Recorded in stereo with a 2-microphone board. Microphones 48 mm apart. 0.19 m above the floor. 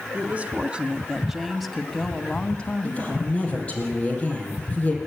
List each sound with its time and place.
0.1 s a woman speaking: 30° right (ahead or behind), 1.4 m; by 3.8 s 45° left (ahead or behind), 1.6 m
2.8 s a woman speaking: 25° left (ahead or behind), 6 m